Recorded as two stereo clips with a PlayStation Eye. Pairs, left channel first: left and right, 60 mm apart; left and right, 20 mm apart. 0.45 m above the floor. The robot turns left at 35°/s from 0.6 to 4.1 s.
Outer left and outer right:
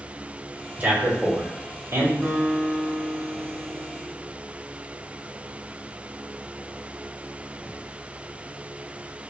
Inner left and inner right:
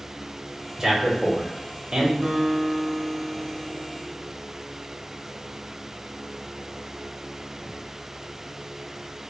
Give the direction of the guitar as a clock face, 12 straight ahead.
6 o'clock.